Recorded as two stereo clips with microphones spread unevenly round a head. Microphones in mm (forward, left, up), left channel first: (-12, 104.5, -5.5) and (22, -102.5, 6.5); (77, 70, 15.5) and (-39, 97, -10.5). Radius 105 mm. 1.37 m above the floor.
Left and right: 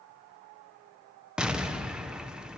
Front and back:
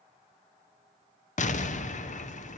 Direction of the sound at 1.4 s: 5° left.